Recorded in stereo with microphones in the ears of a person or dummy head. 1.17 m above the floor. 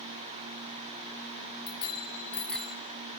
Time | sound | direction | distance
1.7 | a bicycle bell | 30° left (ahead or behind) | 2.5 m